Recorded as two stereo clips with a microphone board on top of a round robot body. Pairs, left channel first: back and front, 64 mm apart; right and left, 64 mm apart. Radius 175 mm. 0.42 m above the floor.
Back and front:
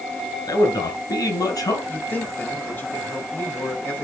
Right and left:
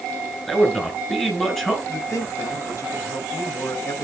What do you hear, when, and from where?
0.5 s a man speaking: 170° right, 5 m
1.9 s a man speaking: 120° right, 4.5 m